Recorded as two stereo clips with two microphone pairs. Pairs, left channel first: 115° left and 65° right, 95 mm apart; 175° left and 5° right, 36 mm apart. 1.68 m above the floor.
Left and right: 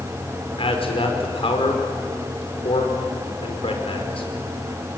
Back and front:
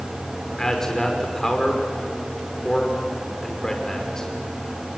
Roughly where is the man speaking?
Left.